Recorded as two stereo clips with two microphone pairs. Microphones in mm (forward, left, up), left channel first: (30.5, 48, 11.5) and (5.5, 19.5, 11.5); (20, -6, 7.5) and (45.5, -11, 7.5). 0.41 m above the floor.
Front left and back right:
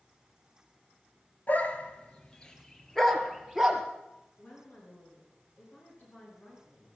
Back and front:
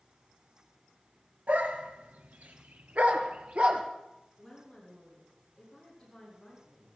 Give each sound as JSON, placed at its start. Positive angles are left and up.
{"t": 1.5, "sound": "a dog barking", "azimuth_deg": 5, "distance_m": 1.8}
{"t": 4.4, "sound": "a woman speaking", "azimuth_deg": 90, "distance_m": 6.5}